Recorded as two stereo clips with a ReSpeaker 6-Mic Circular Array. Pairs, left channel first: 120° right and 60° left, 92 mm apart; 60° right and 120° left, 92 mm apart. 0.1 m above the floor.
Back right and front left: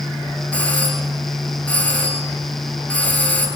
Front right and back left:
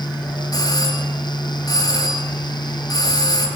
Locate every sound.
0.5 s a doorbell: 50° right, 2 m